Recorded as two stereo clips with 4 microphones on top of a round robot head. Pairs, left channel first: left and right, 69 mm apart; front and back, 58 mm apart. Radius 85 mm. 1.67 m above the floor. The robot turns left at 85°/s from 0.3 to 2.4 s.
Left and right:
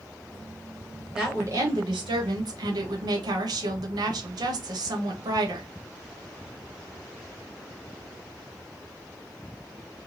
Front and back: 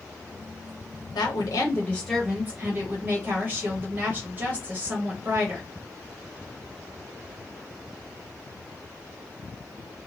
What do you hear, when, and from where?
1.1 s a woman speaking: 5° right, 1.0 m; by 5.7 s 115° right, 1.0 m